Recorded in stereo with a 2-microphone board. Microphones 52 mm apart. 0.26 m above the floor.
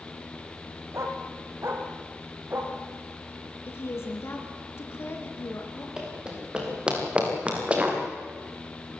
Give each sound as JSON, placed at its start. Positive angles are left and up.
{"t": 0.9, "sound": "a dog barking", "side_deg": -60, "distance_m": 4.0}
{"t": 3.7, "sound": "a woman speaking", "side_deg": 50, "distance_m": 3.5}
{"t": 6.0, "sound": "running footsteps", "side_deg": -15, "distance_m": 6.5}